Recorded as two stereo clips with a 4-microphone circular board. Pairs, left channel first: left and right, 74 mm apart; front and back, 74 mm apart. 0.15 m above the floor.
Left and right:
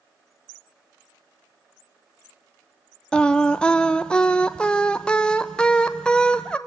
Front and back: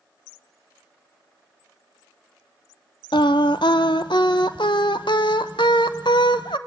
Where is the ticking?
No ticking in this recording.